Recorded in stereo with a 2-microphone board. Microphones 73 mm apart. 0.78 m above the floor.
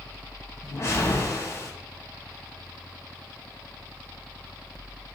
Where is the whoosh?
35° left (ahead or behind), 2.5 m.